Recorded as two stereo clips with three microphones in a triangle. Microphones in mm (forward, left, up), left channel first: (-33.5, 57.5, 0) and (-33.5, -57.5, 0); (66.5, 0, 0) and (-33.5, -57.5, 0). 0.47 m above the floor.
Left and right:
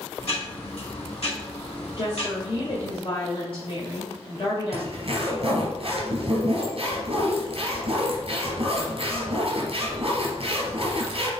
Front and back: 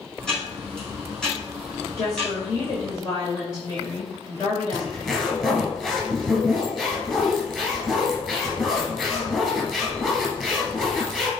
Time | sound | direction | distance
0.2 | ticking | 115° left | 4 m
2.0 | a woman speaking | 70° left | 1.9 m
4.7 | a zipper | 55° right | 2.5 m